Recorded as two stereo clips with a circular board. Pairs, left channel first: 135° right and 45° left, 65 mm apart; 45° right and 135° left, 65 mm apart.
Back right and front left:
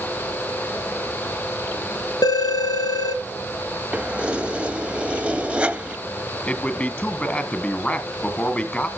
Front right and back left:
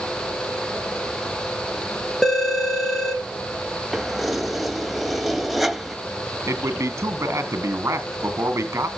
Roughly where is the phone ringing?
Behind right.